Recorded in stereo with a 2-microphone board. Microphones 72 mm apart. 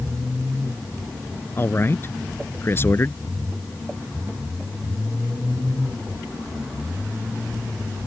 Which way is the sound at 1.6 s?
35° left (ahead or behind).